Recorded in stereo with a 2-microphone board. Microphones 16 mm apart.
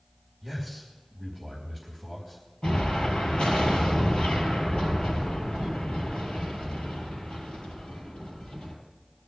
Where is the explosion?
80° left, 5 m.